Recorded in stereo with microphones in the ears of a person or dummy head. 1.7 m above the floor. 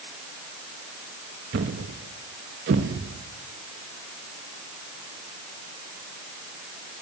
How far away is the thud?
About 1.2 m.